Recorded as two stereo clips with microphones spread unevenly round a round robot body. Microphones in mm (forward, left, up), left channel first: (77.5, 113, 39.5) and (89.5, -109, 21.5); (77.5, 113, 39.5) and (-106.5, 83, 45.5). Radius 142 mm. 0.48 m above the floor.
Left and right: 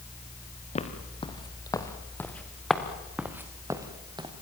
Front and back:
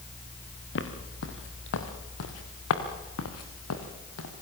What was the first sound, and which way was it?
Footsteps, 30° left.